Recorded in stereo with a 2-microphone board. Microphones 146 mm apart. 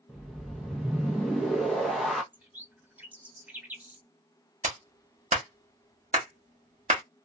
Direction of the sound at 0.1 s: Centre (ahead or behind).